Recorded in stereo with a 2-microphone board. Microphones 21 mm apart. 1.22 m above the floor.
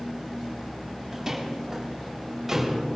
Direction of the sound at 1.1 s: 20° right (ahead or behind).